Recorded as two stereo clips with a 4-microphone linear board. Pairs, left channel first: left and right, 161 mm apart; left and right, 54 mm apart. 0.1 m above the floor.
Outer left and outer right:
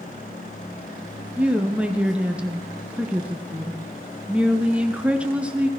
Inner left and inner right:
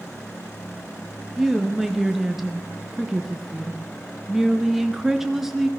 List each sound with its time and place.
1.4 s a woman speaking: 5° right (ahead or behind), 1.3 m